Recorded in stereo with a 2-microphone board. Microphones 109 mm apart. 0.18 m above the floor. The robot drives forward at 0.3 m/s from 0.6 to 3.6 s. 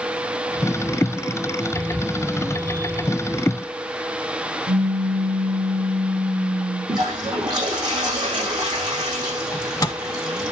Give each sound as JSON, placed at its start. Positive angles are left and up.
{"t": 4.7, "sound": "a pop", "side_deg": -50, "distance_m": 3.0}
{"t": 6.9, "sound": "a toilet flushing", "side_deg": -40, "distance_m": 7.0}
{"t": 9.5, "sound": "a microwave", "side_deg": 30, "distance_m": 0.9}